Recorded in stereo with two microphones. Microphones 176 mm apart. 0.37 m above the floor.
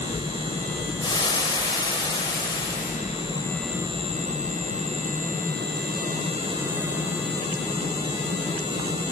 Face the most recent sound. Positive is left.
turn(degrees=25)  # may be behind; listen again after turning